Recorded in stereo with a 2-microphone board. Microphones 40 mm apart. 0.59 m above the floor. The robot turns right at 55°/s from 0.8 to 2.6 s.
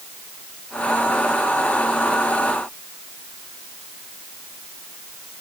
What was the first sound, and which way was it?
Only background noise.